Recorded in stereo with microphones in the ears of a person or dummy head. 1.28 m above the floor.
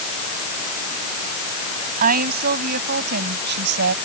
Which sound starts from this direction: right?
A woman speaking, at 2.0 s.